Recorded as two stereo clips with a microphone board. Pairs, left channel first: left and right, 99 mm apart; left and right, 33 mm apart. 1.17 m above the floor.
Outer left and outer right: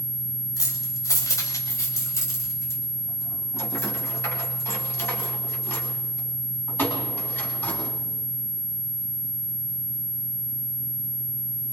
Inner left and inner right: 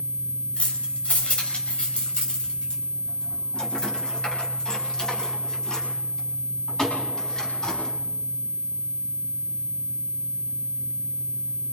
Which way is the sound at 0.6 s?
35° left (ahead or behind).